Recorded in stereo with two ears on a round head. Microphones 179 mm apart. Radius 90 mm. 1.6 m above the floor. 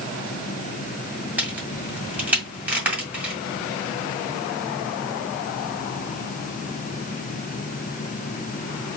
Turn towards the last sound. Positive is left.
turn(degrees=-10)  # may be behind; listen again after turning